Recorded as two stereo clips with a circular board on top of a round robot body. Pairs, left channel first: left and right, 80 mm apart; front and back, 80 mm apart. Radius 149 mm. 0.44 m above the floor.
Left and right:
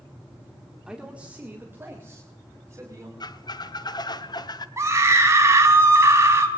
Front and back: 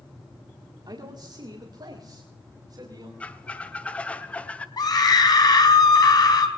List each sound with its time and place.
0.9 s a man speaking: 170° right, 1.8 m; by 3.1 s 145° right, 4 m
3.2 s a squeak: 70° left, 1.2 m
4.8 s a scream: 35° right, 4 m